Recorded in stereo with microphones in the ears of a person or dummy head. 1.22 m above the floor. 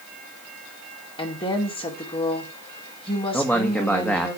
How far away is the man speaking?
About 1.7 m.